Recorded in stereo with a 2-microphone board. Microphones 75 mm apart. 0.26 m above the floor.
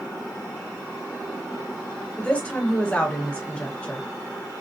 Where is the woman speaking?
15° left (ahead or behind), 1.2 m.